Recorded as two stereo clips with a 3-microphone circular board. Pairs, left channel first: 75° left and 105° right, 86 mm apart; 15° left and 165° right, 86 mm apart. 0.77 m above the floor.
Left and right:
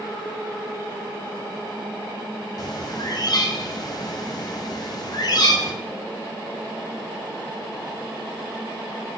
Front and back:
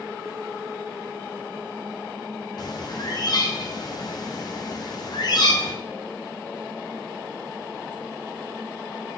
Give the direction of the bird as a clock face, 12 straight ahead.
11 o'clock.